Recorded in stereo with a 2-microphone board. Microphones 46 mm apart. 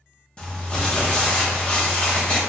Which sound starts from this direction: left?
Crumpling, at 0.4 s.